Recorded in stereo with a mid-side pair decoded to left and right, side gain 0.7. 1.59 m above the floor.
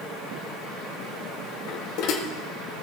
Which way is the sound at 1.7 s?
65° left.